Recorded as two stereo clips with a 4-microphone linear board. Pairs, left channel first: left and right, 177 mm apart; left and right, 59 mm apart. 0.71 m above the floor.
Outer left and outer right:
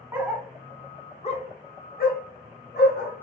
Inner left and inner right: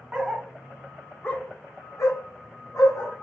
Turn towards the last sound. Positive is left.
turn(degrees=70)  # may be behind; listen again after turning